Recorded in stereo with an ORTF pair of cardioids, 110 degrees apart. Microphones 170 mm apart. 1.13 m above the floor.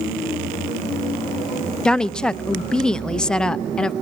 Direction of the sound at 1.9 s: 5° left.